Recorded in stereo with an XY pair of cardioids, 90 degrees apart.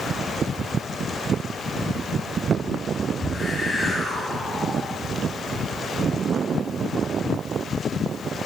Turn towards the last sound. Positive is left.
turn(degrees=25)